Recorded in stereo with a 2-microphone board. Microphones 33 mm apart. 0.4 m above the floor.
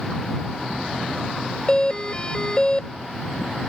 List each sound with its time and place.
1.7 s a doorbell: 30° left (ahead or behind)